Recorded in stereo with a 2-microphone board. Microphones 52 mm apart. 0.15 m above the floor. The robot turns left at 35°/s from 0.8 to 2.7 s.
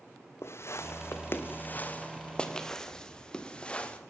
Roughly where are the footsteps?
Left.